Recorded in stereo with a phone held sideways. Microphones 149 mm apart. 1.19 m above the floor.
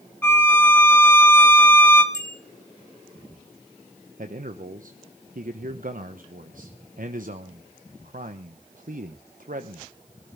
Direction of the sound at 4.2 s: 65° right (ahead or behind).